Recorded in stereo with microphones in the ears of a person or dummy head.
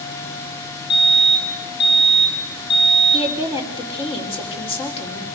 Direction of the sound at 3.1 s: 30° left (ahead or behind).